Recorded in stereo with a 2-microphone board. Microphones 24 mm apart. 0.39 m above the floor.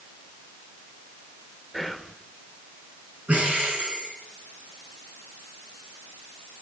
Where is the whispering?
5° left (ahead or behind), 1.4 m.